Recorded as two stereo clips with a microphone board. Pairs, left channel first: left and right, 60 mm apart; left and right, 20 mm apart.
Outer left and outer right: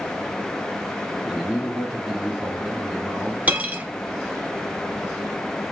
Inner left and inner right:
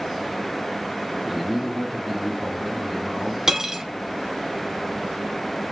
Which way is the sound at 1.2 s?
10° right (ahead or behind).